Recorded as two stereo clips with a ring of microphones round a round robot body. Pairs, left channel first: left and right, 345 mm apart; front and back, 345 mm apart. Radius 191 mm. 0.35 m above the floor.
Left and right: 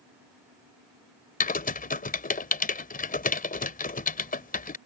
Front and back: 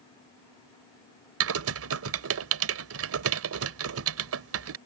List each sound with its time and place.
1.4 s typing on a keyboard: 150° left